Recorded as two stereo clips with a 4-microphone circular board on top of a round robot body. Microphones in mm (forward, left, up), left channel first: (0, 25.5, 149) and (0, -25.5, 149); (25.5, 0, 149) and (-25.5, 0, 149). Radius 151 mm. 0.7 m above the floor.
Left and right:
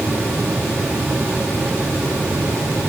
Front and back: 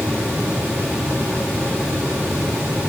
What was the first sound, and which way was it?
Only background noise.